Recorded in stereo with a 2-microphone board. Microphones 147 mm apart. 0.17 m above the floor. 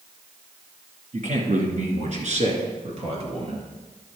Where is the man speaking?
55° right (ahead or behind), 2 m; by 3.7 s 40° right (ahead or behind), 2.5 m.